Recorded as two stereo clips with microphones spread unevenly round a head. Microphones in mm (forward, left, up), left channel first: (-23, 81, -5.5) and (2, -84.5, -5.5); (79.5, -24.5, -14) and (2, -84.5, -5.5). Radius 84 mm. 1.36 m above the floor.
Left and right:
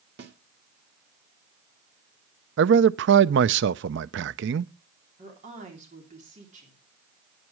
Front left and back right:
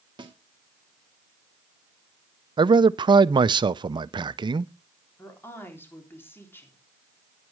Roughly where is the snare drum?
Right.